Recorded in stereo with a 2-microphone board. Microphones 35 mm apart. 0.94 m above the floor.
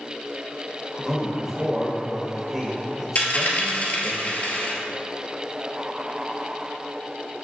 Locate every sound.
1.0 s a man speaking: 15° right (ahead or behind), 1.0 m
3.1 s a dropped coin: 45° left (ahead or behind), 1.4 m